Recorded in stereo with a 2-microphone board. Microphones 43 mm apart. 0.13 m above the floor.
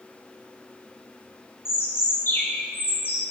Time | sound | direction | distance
1.6 | a bird | 65° left (ahead or behind) | 2.5 m